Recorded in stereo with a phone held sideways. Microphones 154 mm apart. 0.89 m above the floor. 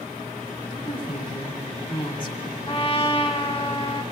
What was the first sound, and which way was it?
A woman speaking, 35° left (ahead or behind).